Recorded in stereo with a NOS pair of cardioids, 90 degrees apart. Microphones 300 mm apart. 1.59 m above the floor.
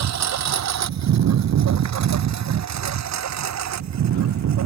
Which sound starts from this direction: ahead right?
A lawn mower, at 0.0 s.